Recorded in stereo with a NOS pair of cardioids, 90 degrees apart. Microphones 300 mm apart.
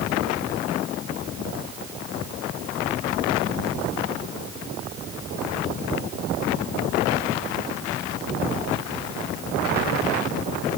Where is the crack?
No crack in this recording.